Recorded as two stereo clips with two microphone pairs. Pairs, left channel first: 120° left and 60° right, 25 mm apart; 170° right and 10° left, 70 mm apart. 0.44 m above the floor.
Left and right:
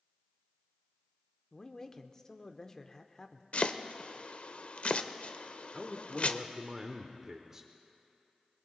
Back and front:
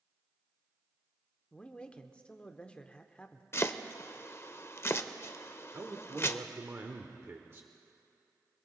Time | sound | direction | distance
1.5 | a man speaking | 140° left | 0.8 m
3.5 | chopping | 145° left | 0.6 m
5.7 | a man speaking | 10° right | 0.9 m